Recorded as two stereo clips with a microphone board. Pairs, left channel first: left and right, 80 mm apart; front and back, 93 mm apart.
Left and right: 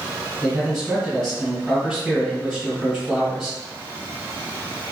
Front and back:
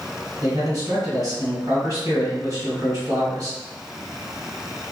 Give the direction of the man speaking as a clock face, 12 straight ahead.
6 o'clock.